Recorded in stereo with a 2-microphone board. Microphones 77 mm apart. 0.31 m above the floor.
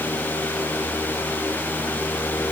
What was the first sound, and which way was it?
Only background noise.